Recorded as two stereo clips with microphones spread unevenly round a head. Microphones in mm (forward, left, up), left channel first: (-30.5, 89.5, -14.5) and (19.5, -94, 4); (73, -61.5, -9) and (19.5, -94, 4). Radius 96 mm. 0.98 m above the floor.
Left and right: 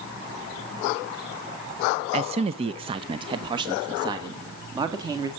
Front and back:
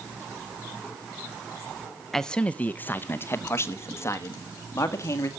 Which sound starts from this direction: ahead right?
A man speaking, at 2.1 s.